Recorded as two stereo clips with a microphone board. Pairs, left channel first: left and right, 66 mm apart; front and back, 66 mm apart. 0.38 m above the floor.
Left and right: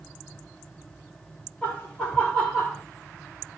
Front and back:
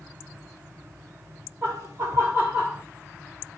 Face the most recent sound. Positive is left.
turn(degrees=155)